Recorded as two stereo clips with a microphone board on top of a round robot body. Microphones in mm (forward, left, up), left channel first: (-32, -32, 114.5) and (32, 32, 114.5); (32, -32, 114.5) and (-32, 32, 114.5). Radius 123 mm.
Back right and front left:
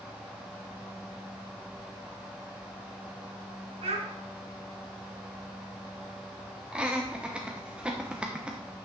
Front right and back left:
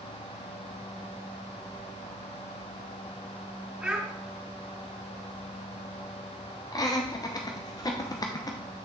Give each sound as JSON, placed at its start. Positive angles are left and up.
{"t": 3.8, "sound": "a child speaking", "azimuth_deg": 50, "distance_m": 3.5}
{"t": 6.7, "sound": "laughter", "azimuth_deg": -30, "distance_m": 1.0}